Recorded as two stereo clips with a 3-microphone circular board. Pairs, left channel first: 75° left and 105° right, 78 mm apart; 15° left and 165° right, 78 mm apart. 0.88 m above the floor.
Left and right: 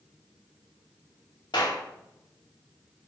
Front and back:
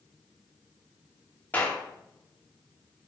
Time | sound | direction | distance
1.5 | a clap | 85° left | 2 m